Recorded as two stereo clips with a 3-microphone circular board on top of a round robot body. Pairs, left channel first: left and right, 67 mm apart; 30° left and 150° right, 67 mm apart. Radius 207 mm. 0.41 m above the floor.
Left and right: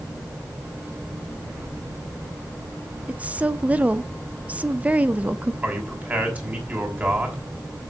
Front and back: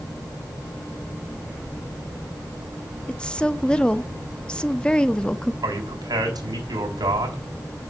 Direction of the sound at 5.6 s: 155° right.